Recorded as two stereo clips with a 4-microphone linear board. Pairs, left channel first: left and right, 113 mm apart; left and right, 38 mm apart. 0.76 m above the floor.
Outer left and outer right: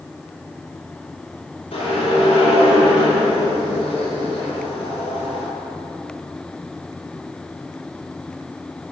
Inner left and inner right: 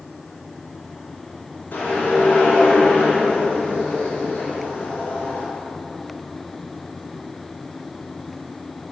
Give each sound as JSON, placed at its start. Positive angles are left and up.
{"t": 1.7, "sound": "a whoosh", "side_deg": 55, "distance_m": 3.5}